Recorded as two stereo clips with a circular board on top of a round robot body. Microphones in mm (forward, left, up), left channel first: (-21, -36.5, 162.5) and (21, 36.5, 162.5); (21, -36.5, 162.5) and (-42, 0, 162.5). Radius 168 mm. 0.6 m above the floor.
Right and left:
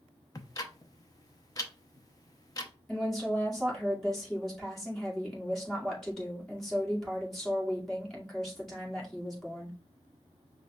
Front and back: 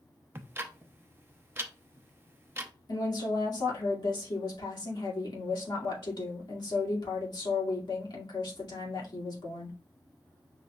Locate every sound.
0.3 s ticking: 155° right, 0.7 m
2.9 s a woman speaking: 35° right, 2.5 m